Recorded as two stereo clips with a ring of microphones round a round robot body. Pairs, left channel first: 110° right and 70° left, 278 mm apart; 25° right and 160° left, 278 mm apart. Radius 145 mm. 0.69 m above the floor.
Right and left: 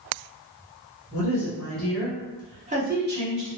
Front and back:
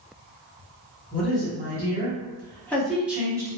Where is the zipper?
No zipper in this recording.